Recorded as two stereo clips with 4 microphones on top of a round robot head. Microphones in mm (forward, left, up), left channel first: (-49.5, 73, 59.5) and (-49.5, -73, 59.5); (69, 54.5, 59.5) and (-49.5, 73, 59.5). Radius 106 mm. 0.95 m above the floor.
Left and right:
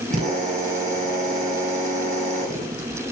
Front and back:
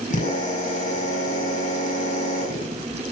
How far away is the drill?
About 7.5 m.